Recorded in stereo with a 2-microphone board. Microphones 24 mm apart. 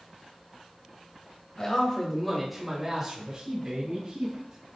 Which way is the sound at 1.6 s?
35° left (ahead or behind).